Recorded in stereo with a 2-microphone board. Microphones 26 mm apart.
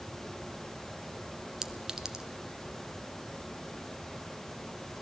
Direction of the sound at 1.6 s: 20° right (ahead or behind).